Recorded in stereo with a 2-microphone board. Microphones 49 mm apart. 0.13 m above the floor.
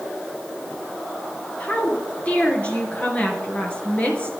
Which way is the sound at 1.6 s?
25° left (ahead or behind).